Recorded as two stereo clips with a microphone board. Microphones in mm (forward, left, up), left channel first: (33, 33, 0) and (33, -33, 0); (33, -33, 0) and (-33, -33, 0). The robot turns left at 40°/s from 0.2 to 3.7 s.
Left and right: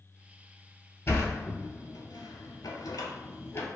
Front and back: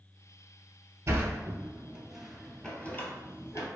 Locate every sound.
1.1 s a sliding door: 140° left, 0.5 m; by 3.7 s 35° left, 0.5 m